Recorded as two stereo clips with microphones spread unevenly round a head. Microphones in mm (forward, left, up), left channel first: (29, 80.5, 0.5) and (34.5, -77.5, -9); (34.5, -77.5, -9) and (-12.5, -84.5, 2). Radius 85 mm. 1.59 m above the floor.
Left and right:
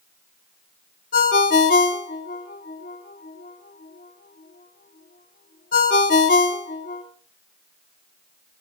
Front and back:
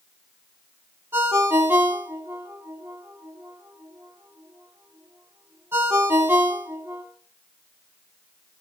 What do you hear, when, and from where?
1.1 s a ringtone: 135° left, 2.5 m